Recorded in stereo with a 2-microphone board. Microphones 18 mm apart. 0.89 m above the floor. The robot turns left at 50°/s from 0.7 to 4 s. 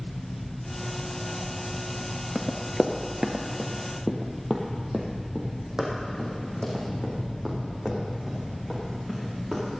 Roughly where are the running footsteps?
Centre.